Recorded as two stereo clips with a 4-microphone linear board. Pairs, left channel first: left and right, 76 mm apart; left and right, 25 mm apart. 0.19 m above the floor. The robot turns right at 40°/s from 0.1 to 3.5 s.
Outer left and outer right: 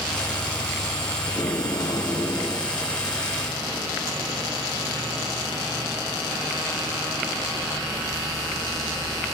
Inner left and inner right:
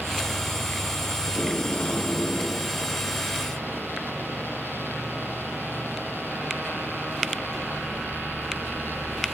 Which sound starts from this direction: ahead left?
Tape being pulled, at 1.3 s.